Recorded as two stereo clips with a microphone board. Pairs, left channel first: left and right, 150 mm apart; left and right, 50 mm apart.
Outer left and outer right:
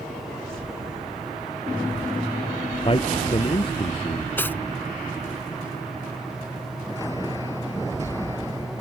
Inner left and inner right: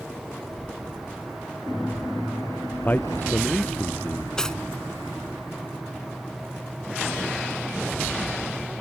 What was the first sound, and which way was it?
A man speaking, 35° left (ahead or behind).